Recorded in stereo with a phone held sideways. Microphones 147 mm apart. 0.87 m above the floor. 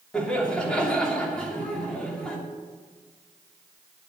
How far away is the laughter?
About 2.5 m.